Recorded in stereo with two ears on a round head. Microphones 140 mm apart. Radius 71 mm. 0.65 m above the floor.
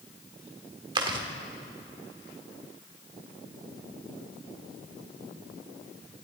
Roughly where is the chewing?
Right.